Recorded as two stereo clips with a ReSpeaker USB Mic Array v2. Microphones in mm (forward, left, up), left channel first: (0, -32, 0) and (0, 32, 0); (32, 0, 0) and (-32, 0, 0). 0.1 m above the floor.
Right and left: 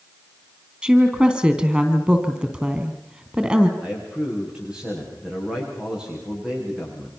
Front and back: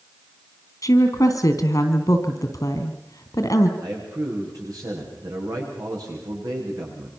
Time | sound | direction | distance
0.8 | a woman speaking | 20° left | 3 m
3.8 | a man speaking | 165° left | 9 m